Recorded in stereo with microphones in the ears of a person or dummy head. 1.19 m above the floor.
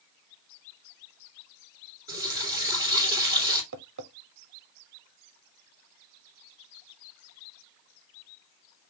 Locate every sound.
2.1 s a running tap: 15° right (ahead or behind), 2 m
3.7 s tapping: 65° right (ahead or behind), 0.7 m